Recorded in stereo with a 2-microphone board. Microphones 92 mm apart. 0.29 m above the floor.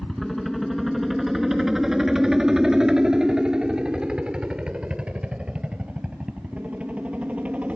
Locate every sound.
0.0 s a helicopter: 5° left (ahead or behind); by 7.8 s 15° right (ahead or behind)